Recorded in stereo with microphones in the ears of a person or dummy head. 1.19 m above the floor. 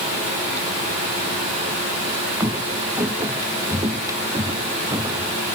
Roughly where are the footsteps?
Centre.